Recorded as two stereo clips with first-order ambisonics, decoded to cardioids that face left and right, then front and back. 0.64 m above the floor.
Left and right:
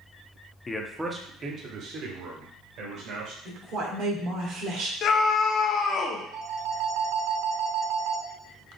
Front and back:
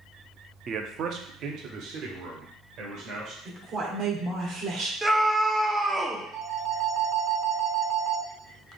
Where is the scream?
105° left, 1.0 m.